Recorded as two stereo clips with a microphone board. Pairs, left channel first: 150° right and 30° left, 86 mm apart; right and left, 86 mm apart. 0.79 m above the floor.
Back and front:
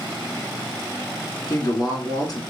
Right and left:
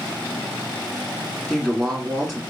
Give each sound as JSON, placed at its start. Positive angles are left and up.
{"t": 1.5, "sound": "a woman speaking", "azimuth_deg": -175, "distance_m": 1.4}